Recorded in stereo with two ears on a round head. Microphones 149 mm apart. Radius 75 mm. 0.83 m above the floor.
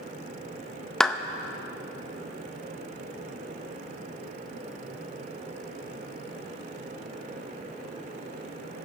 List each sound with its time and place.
1.0 s a clap: 5° left (ahead or behind), 0.6 m